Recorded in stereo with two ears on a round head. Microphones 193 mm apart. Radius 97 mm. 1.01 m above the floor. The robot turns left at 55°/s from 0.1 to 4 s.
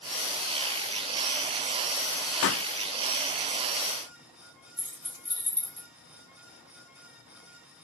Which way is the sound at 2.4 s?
60° left (ahead or behind).